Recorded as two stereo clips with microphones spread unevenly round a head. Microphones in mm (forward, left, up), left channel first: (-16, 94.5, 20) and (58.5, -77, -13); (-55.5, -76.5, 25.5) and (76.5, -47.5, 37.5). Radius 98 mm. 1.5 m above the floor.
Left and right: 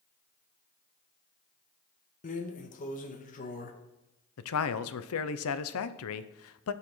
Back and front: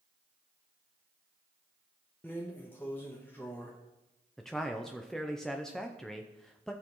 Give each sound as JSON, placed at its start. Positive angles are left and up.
{"t": 2.2, "sound": "a drawer", "azimuth_deg": 110, "distance_m": 0.8}
{"t": 4.4, "sound": "a man speaking", "azimuth_deg": 105, "distance_m": 0.6}